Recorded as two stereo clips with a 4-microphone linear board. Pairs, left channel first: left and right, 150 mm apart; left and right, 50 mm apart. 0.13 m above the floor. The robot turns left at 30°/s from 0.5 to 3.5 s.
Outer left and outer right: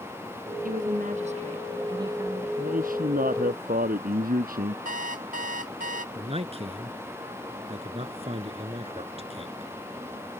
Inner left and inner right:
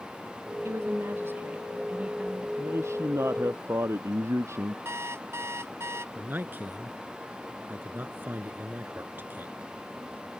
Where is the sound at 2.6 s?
65° right (ahead or behind); by 4.8 s 75° right (ahead or behind).